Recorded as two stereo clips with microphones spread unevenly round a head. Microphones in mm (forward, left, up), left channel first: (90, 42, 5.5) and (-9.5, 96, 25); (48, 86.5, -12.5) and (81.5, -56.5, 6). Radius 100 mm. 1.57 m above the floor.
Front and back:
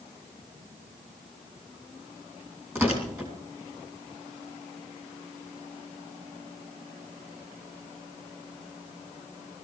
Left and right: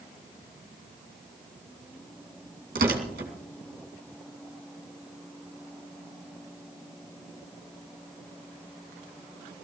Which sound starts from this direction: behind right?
Tearing paper, at 2.8 s.